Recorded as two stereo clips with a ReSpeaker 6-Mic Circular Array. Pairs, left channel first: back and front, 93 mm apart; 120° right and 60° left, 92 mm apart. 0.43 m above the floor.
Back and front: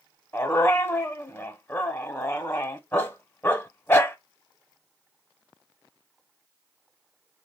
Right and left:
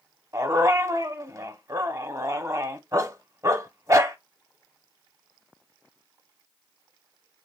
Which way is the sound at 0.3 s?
115° left.